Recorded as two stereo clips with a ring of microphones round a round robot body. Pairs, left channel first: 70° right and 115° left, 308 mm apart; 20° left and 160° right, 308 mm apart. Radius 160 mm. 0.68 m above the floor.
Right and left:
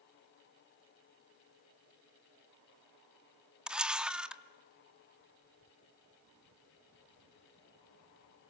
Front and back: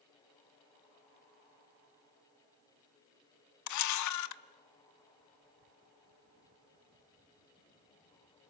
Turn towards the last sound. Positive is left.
turn(degrees=25)